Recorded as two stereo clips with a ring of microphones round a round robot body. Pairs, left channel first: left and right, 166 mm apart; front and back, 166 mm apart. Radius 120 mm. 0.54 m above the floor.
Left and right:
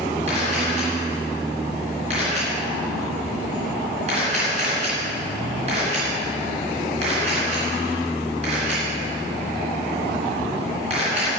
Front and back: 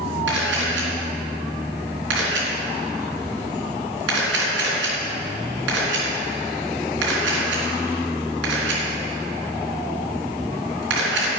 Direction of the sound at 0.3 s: 155° right.